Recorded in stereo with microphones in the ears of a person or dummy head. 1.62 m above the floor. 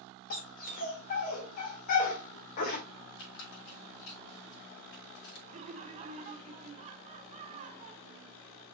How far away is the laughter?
About 1.1 m.